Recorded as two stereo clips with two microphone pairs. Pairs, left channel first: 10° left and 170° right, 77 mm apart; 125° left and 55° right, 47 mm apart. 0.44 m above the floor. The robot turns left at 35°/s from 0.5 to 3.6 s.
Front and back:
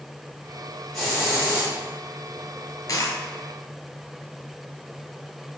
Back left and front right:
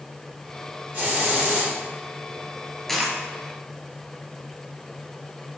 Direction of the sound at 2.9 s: 45° left.